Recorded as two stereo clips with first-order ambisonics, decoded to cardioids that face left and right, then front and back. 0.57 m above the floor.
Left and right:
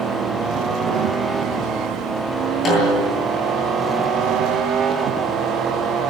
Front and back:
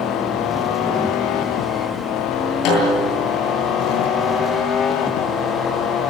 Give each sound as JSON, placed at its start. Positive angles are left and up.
{"t": 2.6, "sound": "a snare drum", "azimuth_deg": 25, "distance_m": 9.5}